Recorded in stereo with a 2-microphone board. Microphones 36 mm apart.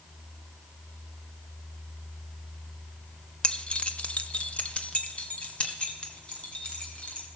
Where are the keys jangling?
30° left (ahead or behind), 1.0 m; by 7.3 s 35° left (ahead or behind), 3.5 m.